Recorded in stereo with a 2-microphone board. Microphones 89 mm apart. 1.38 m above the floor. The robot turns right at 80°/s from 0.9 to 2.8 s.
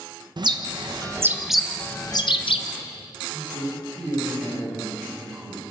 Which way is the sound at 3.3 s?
40° right (ahead or behind).